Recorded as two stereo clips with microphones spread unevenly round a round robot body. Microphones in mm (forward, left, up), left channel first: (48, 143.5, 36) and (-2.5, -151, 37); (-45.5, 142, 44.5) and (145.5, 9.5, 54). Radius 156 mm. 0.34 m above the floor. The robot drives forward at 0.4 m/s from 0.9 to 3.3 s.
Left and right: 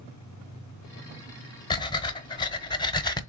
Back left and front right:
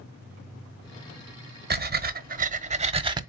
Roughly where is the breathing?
Ahead.